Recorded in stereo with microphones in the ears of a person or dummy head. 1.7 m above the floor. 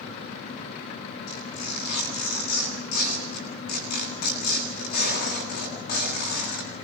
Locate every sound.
1.3 s tearing paper: 50° left (ahead or behind), 10 m